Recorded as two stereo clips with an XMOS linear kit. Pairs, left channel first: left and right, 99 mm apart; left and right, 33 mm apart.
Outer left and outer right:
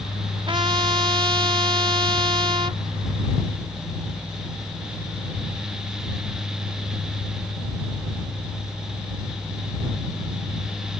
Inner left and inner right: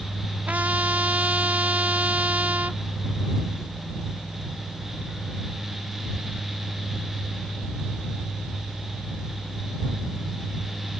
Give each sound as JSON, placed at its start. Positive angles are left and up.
{"t": 0.5, "sound": "a trumpet", "side_deg": -60}